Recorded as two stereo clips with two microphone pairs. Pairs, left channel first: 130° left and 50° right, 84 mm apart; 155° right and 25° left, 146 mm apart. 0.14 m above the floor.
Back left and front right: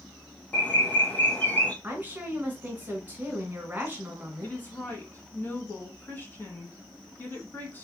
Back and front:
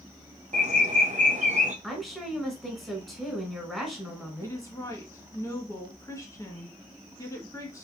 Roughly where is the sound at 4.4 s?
Behind left.